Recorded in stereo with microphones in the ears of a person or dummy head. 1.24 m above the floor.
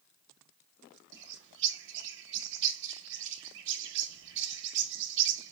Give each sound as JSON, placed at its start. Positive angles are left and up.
{"t": 1.1, "sound": "a bird", "side_deg": -60, "distance_m": 0.7}